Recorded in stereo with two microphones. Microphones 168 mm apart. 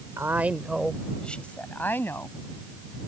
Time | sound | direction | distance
0.2 | a woman speaking | 15° right (ahead or behind) | ?